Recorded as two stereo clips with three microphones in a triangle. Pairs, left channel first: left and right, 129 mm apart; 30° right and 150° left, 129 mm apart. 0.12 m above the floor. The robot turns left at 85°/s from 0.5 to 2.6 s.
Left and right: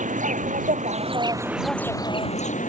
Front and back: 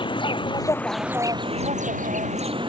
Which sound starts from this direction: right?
An insect, at 0.0 s.